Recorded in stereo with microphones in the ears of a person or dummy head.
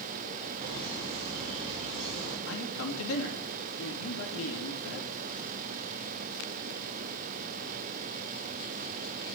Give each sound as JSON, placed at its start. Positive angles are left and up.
{"t": 0.6, "sound": "laughter", "side_deg": -25, "distance_m": 5.0}
{"t": 2.5, "sound": "a man speaking", "side_deg": 70, "distance_m": 2.5}